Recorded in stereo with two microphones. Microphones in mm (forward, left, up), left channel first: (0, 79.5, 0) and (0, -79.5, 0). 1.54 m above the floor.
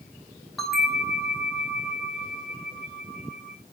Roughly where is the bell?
Centre.